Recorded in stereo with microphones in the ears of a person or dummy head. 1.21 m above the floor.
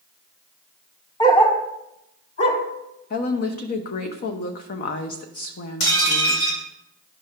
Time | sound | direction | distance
1.2 | a dog barking | 35° left (ahead or behind) | 1.1 m
3.1 | a woman speaking | 40° left (ahead or behind) | 1.0 m
5.8 | dishes clattering | 65° left (ahead or behind) | 2.5 m